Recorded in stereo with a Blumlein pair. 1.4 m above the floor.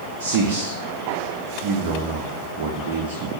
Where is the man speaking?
50° right, 0.6 m.